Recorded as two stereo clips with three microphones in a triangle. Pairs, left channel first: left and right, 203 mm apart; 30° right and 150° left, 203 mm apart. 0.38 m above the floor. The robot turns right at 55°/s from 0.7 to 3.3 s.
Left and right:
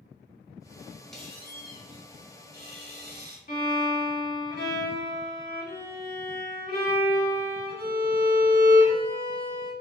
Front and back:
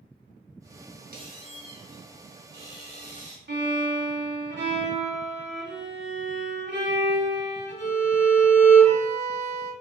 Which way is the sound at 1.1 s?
175° left.